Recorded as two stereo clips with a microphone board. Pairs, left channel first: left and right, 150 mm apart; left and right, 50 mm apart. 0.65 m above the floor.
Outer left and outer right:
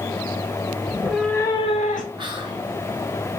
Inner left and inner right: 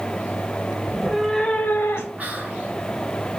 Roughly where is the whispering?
Right.